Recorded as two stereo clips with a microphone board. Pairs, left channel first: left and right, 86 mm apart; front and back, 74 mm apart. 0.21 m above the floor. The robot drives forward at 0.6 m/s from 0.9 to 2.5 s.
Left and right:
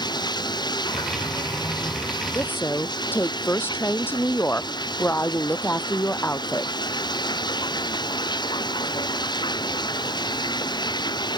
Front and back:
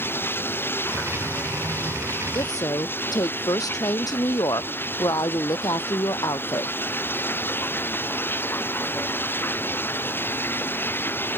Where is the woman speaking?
25° left.